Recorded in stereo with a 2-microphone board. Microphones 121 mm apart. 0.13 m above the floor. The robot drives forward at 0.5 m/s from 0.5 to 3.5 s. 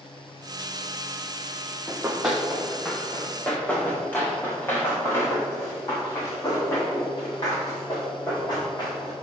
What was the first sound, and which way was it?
Running footsteps, 15° right (ahead or behind).